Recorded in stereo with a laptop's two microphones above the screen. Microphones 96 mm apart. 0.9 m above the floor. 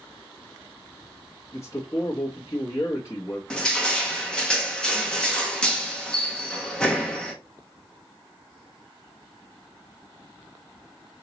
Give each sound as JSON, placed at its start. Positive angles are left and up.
{"t": 1.5, "sound": "a man speaking", "side_deg": 30, "distance_m": 0.8}
{"t": 3.5, "sound": "crushing", "side_deg": 10, "distance_m": 0.7}